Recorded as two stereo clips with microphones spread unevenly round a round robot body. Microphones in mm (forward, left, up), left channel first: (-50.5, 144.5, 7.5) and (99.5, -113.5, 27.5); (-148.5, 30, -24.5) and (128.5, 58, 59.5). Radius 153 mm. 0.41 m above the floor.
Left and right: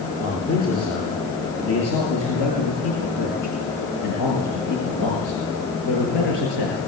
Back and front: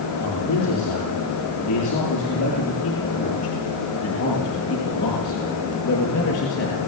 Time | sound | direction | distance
0.2 | a man speaking | 170° left | 8.5 m